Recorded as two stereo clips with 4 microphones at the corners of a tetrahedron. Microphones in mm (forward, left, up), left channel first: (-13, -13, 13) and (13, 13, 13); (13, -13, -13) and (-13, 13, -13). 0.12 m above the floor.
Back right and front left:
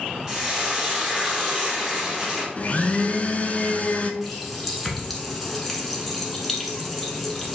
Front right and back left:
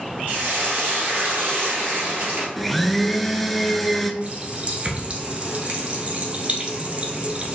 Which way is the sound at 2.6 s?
130° right.